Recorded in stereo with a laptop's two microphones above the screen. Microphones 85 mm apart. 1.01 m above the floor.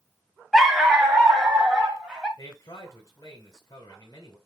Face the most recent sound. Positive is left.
turn(degrees=45)  # may be behind; listen again after turning